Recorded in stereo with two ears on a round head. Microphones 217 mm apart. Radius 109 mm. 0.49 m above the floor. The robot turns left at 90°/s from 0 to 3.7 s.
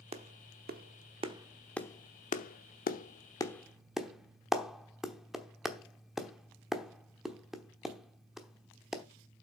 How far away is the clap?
About 0.9 m.